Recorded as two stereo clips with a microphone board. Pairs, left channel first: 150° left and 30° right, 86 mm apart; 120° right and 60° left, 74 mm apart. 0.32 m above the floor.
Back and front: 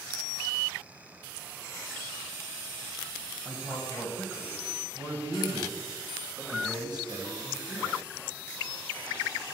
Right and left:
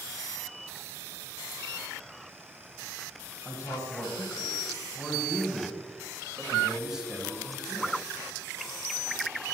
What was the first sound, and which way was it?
A man speaking, 90° right.